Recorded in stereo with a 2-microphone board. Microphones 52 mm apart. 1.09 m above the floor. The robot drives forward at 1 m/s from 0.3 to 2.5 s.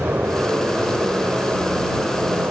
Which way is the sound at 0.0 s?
45° right (ahead or behind).